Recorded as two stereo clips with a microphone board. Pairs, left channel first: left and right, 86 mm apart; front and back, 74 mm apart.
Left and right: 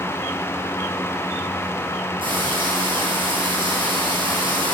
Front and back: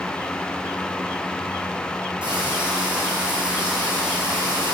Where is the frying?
105° right, 4 m.